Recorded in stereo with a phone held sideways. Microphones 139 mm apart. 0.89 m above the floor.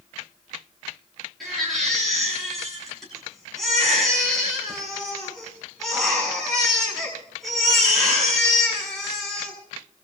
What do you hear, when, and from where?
1.4 s a baby crying: centre (ahead or behind), 7.5 m